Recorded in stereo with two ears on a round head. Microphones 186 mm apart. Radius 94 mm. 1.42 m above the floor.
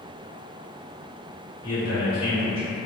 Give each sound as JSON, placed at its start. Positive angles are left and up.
{"t": 1.6, "sound": "a man speaking", "side_deg": 65, "distance_m": 1.4}